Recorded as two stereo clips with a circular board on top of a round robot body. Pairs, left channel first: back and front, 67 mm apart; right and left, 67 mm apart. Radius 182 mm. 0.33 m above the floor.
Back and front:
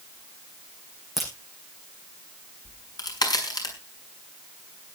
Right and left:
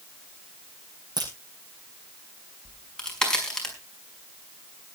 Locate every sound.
1.2 s a crack: 85° left, 7.5 m
2.6 s a crack: 170° right, 5.5 m